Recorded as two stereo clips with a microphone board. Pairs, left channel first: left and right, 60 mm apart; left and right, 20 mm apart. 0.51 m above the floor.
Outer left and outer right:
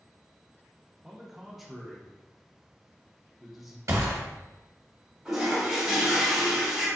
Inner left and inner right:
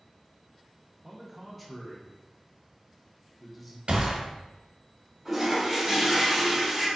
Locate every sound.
1.0 s a man speaking: 5° right (ahead or behind), 0.7 m
3.9 s a gunshot: 60° right (ahead or behind), 0.9 m
5.2 s a toilet flushing: 10° right (ahead or behind), 1.2 m